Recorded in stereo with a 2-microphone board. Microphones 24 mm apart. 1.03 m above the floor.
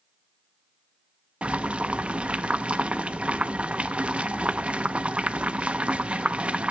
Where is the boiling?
60° right (ahead or behind), 0.6 m.